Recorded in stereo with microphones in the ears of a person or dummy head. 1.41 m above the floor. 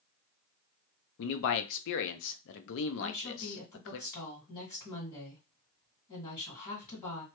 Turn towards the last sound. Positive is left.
turn(degrees=35)  # may be behind; listen again after turning